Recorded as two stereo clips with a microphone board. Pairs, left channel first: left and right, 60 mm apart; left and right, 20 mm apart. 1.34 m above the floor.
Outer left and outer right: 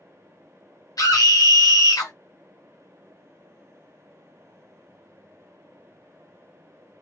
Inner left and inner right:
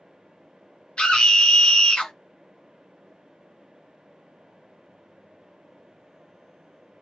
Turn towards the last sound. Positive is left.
turn(degrees=80)